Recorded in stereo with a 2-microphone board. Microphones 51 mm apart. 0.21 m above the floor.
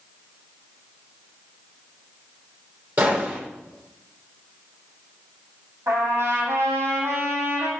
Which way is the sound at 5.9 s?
70° right (ahead or behind).